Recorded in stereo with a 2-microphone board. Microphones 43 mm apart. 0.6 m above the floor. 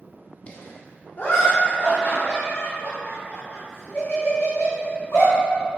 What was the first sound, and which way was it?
Laughter, 25° left (ahead or behind).